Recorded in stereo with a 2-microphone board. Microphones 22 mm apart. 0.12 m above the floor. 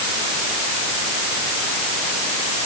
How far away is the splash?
I don't hear a splash.